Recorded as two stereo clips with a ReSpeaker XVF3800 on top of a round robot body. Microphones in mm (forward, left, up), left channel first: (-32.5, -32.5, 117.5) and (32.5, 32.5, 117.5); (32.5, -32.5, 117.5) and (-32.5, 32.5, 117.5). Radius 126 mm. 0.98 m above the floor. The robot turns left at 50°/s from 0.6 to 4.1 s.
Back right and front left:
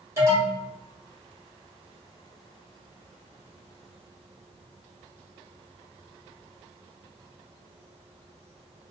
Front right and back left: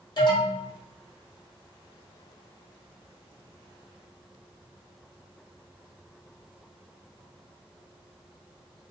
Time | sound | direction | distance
0.2 | an alarm | 10° right | 1.8 m